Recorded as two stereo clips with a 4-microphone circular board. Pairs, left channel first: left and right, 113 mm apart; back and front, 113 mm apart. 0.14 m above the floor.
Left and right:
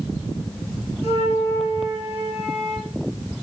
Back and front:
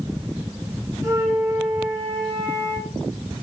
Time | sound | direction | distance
1.0 | a flute | 60° right | 4 m